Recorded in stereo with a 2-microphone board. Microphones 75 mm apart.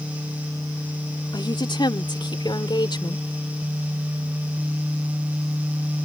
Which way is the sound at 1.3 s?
90° left.